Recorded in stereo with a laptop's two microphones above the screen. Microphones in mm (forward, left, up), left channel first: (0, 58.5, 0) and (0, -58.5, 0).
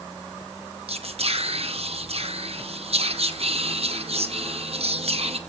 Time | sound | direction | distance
0.9 | whispering | 60° right (ahead or behind) | 1.1 m